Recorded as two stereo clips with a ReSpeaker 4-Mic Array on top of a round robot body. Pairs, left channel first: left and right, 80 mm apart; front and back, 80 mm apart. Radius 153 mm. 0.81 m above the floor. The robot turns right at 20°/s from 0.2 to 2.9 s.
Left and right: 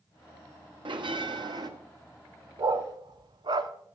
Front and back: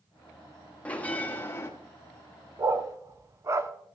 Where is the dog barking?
130° right, 0.7 m; by 3.7 s 125° right, 0.7 m.